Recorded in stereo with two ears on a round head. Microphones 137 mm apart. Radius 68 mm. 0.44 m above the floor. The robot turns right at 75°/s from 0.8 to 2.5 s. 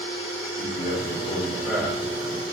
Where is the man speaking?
110° left, 3 m; by 2.5 s 125° right, 3 m.